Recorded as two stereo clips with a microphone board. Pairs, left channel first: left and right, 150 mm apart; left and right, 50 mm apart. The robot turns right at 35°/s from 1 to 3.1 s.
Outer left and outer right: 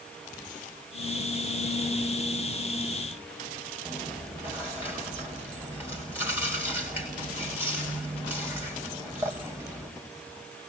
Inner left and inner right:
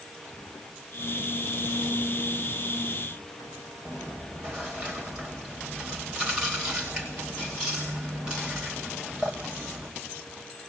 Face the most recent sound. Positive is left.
turn(degrees=-15)  # may be behind; listen again after turning